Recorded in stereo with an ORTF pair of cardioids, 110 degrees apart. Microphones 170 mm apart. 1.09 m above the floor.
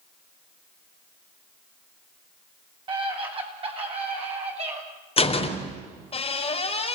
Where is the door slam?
35° left, 3.5 m.